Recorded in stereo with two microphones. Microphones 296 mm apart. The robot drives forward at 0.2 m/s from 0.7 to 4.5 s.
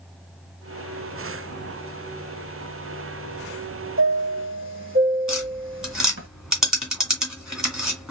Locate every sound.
4.0 s a chime: 45° right (ahead or behind), 1.4 m; by 6.3 s 40° right (ahead or behind), 1.5 m
5.3 s tapping: centre (ahead or behind), 2 m